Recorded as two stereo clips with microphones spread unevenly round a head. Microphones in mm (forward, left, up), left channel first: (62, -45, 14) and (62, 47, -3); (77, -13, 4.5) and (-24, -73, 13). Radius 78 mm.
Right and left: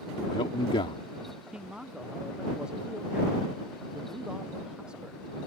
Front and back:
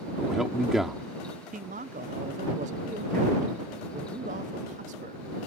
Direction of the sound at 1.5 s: Straight behind.